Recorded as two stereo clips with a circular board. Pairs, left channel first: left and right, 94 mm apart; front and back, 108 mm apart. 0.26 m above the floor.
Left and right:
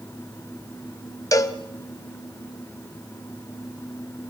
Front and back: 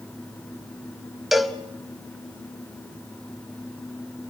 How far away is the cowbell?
About 1.2 m.